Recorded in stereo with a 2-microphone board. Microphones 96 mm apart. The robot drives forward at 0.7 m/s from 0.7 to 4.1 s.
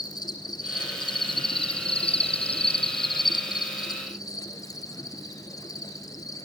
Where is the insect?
45° left (ahead or behind), 1.5 m; by 6.5 s 40° left (ahead or behind), 1.7 m.